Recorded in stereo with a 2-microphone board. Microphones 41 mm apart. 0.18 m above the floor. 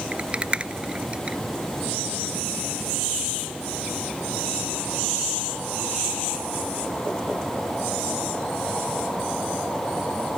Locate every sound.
0.1 s a rattle: 25° right (ahead or behind), 0.5 m